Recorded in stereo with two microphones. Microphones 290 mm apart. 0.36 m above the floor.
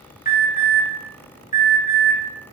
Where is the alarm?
30° left (ahead or behind), 0.7 m.